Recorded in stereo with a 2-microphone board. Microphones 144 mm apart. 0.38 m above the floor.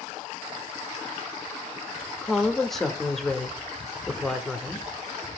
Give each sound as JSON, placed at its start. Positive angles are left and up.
{"t": 2.2, "sound": "a woman speaking", "side_deg": 0, "distance_m": 0.8}